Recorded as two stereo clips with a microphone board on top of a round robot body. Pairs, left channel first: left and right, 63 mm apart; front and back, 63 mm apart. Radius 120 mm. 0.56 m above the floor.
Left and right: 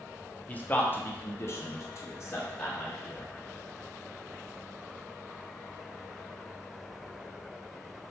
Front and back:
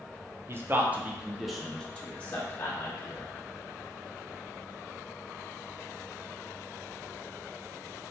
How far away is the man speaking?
About 1.1 m.